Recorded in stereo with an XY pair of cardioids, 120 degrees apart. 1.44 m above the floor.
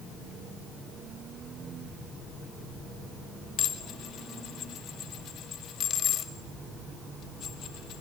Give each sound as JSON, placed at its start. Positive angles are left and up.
{"t": 3.6, "sound": "dishes clattering", "azimuth_deg": 60, "distance_m": 2.0}